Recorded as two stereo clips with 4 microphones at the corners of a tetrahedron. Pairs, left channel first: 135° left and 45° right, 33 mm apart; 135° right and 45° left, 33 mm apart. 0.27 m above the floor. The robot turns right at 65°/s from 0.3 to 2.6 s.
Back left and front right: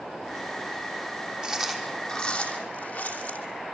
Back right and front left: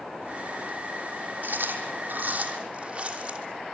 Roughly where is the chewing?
Ahead left.